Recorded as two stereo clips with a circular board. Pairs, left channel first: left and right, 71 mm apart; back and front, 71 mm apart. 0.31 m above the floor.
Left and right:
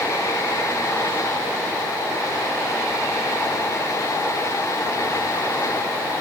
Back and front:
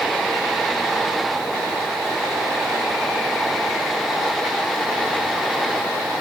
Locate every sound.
Only background noise.